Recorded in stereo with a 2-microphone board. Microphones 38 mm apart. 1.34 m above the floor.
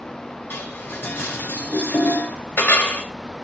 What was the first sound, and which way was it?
Dishes clattering, 80° left.